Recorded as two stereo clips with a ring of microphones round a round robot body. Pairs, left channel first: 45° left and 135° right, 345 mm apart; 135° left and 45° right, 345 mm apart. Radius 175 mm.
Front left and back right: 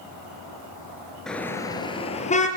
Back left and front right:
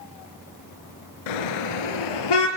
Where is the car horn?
135° left, 3 m; by 2.5 s 115° left, 4.5 m.